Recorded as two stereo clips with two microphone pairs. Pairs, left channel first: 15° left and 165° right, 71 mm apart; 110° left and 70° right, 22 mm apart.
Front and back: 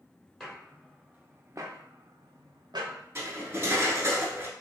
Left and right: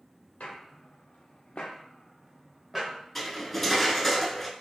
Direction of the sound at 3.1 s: 175° right.